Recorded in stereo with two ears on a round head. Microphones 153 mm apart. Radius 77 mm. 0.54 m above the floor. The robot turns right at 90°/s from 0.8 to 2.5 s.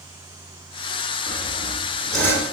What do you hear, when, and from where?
1.3 s sawing: 75° right, 2.0 m; by 2.5 s 40° left, 2.0 m